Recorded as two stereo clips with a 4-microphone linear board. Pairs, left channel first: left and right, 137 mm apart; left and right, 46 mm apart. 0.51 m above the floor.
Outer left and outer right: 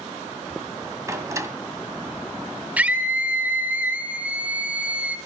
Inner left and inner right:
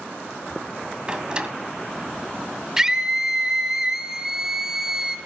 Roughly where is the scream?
Centre.